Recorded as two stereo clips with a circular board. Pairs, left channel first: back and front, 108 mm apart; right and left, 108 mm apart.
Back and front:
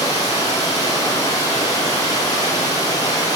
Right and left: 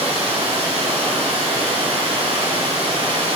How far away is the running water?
About 5.5 m.